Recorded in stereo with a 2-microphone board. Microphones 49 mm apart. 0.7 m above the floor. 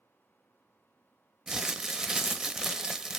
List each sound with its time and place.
1.5 s crumpling: 10° right (ahead or behind), 0.5 m